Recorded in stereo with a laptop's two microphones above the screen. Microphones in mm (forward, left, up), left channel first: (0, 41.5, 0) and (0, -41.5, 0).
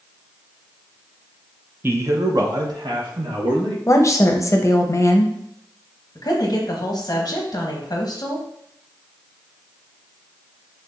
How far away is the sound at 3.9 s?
About 0.6 m.